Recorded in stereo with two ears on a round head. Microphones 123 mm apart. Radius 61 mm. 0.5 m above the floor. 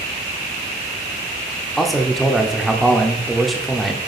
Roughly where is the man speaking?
Centre.